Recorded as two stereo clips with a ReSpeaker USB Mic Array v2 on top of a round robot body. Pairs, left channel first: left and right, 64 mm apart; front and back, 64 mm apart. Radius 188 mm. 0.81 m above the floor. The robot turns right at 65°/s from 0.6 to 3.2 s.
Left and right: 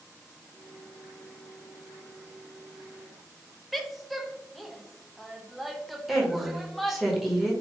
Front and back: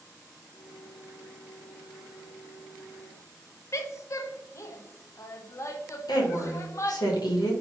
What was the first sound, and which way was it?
A woman speaking, straight ahead.